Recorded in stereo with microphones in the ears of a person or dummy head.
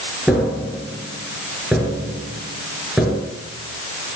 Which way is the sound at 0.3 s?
5° right (ahead or behind).